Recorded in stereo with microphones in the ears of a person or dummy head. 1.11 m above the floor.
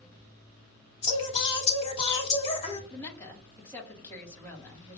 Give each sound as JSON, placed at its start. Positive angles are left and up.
{"t": 1.0, "sound": "singing", "side_deg": 30, "distance_m": 2.0}
{"t": 2.9, "sound": "a woman speaking", "side_deg": 15, "distance_m": 1.7}